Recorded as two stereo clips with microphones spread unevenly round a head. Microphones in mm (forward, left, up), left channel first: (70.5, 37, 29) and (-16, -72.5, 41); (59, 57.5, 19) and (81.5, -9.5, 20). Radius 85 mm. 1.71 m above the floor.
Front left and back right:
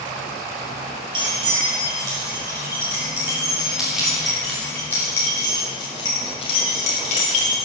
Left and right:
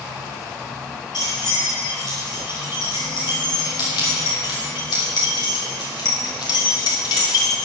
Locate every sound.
1.1 s keys jangling: 175° left, 4 m; by 7.6 s 90° left, 3 m